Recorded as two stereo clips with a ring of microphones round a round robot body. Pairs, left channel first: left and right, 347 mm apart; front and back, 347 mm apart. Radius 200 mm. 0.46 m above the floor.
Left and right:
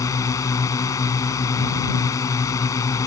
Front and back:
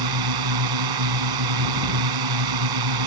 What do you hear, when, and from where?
0.0 s a drone: 170° left